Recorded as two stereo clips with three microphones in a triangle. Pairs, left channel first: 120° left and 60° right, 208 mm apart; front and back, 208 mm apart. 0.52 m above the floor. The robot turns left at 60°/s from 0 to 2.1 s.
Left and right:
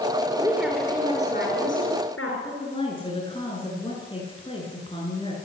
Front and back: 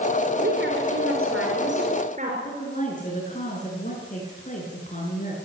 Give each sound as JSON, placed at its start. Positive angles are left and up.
{"t": 0.4, "sound": "a woman speaking", "azimuth_deg": -135, "distance_m": 7.0}
{"t": 2.4, "sound": "a woman speaking", "azimuth_deg": 55, "distance_m": 8.5}